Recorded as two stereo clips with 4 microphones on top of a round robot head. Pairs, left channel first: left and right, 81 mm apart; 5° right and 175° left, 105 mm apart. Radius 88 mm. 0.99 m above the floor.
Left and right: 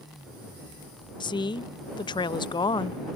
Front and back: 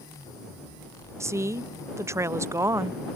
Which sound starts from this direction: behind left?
A woman speaking, at 1.2 s.